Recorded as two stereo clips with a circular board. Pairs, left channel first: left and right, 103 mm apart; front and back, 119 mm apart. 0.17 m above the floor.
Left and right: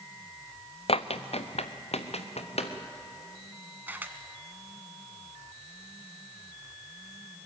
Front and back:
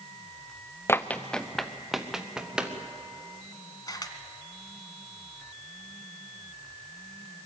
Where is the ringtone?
I don't hear a ringtone.